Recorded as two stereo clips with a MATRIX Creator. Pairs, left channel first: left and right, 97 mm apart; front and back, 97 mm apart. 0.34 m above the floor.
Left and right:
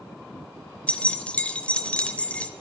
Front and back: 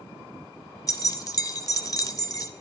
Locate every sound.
0.9 s keys jangling: 20° left, 0.7 m